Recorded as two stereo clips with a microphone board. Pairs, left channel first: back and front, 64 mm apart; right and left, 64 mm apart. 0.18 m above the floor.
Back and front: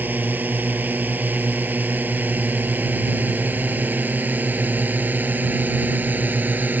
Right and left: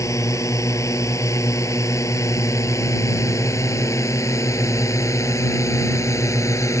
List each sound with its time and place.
0.0 s a drone: 60° right; by 6.8 s 55° right